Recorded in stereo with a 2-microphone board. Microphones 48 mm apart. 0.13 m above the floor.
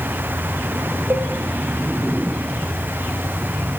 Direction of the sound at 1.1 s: 65° right (ahead or behind).